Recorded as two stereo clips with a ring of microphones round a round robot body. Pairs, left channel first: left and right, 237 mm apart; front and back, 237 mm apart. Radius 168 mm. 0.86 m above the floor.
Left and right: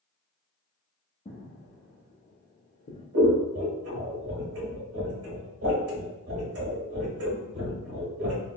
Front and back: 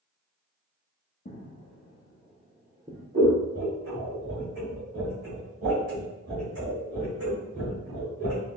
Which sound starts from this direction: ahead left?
Footsteps, at 1.2 s.